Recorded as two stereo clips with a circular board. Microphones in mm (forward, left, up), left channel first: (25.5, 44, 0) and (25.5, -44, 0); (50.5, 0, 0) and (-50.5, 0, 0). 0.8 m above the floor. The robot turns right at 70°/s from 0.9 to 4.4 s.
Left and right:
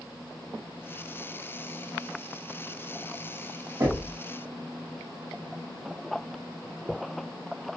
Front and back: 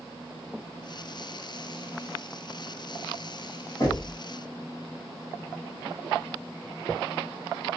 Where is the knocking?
45° right, 1.8 m; by 4.2 s 20° right, 1.8 m.